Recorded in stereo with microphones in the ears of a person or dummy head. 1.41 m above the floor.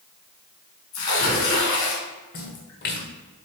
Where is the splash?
50° left (ahead or behind), 1.5 m.